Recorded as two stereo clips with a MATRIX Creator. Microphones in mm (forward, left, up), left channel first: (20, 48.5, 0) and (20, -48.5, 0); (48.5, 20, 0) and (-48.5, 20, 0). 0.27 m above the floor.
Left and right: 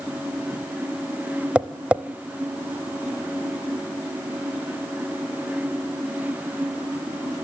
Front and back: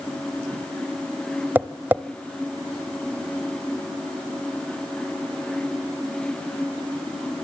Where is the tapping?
150° right, 0.6 m.